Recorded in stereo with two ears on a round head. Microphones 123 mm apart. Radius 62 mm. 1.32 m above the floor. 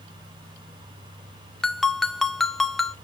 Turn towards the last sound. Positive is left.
turn(degrees=0)  # may be behind; listen again after turning